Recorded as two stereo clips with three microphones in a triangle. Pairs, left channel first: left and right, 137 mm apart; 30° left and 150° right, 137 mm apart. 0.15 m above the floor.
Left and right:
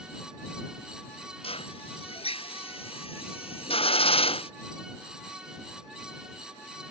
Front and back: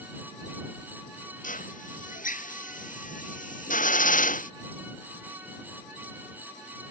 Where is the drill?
45° left.